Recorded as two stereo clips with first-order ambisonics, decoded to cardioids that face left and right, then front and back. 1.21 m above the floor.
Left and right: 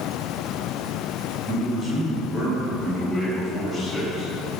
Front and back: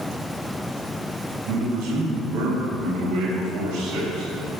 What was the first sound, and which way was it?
A man speaking, 160° right.